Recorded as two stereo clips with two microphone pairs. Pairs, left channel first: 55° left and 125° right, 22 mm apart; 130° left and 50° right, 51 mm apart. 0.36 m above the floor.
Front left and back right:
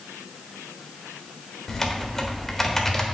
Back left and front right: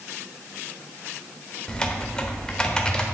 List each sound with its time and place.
1.7 s typing on a keyboard: 95° left, 1.3 m